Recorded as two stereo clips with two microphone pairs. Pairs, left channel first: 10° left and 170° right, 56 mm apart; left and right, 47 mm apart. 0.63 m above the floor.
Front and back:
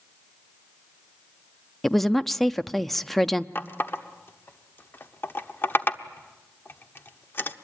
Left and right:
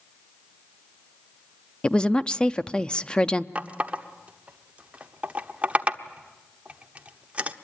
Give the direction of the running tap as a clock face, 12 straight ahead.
1 o'clock.